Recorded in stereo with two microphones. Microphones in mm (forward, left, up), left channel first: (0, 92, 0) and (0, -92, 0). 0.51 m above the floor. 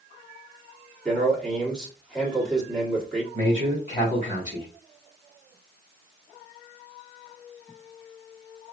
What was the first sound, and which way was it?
A man speaking, 5° left (ahead or behind).